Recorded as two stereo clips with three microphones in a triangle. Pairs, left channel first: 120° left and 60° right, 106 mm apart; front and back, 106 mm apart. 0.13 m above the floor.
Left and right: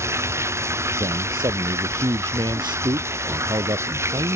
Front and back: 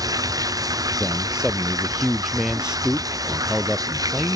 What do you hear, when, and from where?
0.0 s running water: 125° right
1.0 s a man speaking: 100° right